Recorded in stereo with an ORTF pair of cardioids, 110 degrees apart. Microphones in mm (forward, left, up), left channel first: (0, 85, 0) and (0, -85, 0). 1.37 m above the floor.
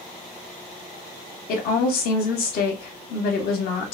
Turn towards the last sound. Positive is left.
turn(degrees=70)